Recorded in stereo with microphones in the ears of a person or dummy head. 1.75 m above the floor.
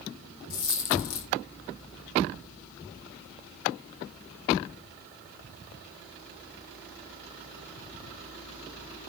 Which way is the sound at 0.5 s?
60° left (ahead or behind).